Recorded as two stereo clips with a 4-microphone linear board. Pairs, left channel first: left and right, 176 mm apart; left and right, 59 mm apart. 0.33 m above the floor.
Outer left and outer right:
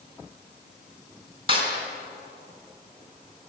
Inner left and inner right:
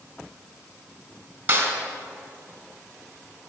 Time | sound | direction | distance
1.5 | a snare drum | 30° right (ahead or behind) | 3.5 m